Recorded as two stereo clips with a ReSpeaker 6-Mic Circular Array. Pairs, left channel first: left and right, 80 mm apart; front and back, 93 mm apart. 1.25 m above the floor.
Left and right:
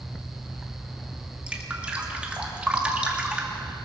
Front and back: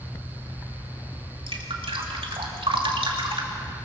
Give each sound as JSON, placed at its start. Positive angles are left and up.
{"t": 1.5, "sound": "dripping", "azimuth_deg": -165, "distance_m": 2.5}